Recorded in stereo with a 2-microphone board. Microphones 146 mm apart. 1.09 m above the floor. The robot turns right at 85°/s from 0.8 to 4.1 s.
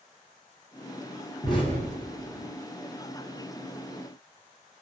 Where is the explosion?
25° left (ahead or behind), 0.9 m; by 2.5 s 60° left (ahead or behind), 0.9 m.